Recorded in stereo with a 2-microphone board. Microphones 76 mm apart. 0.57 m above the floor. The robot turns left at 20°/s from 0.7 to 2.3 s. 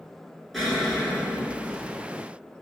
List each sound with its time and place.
0.5 s an explosion: centre (ahead or behind), 1.3 m; by 2.0 s 25° left (ahead or behind), 1.3 m